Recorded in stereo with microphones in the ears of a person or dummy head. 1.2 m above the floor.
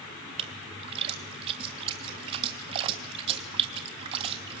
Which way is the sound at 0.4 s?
20° right (ahead or behind).